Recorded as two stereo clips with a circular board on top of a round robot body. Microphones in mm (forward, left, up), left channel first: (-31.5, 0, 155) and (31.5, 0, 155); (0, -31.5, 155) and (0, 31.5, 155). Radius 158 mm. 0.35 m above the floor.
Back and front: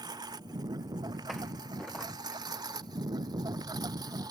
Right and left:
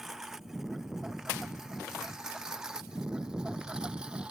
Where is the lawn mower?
5° left; by 4.3 s 15° left.